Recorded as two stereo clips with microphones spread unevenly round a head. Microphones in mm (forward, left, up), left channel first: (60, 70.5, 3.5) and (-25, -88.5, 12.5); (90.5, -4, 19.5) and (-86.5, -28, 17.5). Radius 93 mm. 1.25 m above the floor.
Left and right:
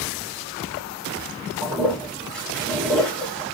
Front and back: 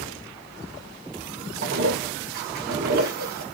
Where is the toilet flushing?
145° left, 0.9 m.